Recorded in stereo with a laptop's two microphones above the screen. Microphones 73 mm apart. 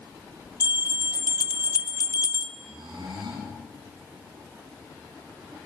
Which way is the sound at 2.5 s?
90° right.